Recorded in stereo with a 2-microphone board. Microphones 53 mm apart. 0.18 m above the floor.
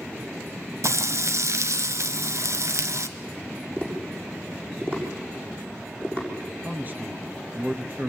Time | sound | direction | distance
0.8 | frying | 65° right (ahead or behind) | 1.3 m
3.8 | tapping | 30° right (ahead or behind) | 7 m
6.6 | a man speaking | 30° right (ahead or behind) | 2.5 m